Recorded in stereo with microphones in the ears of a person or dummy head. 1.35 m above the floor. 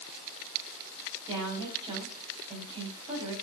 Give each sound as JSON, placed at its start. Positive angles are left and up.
{"t": 1.3, "sound": "a woman speaking", "side_deg": -30, "distance_m": 8.0}